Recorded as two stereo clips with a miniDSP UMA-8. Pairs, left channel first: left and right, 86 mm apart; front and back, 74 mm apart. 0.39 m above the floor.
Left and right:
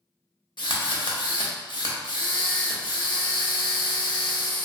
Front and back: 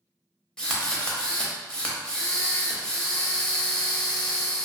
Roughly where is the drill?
Left.